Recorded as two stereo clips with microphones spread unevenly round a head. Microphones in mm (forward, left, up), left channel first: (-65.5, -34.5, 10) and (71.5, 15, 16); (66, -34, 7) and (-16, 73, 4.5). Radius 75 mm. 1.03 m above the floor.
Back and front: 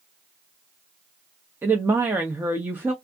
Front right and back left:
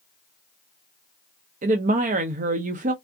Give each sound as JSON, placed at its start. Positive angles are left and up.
{"t": 1.6, "sound": "a woman speaking", "azimuth_deg": 100, "distance_m": 0.6}